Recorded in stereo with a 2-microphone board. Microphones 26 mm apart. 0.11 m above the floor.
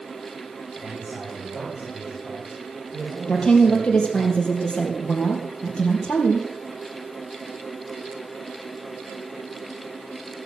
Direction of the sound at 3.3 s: 45° left (ahead or behind).